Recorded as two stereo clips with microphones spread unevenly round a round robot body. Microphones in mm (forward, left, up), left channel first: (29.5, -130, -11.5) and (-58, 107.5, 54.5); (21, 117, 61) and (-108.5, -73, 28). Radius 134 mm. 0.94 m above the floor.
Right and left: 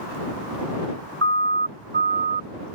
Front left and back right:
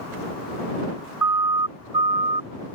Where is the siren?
160° left; by 2.5 s 170° left.